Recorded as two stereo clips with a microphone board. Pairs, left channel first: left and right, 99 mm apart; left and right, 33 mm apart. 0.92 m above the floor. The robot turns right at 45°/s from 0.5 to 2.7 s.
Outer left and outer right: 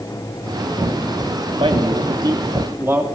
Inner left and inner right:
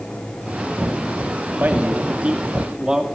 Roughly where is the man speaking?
Right.